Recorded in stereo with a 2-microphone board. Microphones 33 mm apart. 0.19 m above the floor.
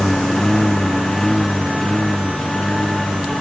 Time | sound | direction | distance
0.0 | a lawn mower | 15° left (ahead or behind) | ?